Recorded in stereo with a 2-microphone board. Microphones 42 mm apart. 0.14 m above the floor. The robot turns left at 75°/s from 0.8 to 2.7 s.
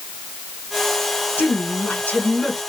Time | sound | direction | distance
1.4 | a woman speaking | 105° left | 1.7 m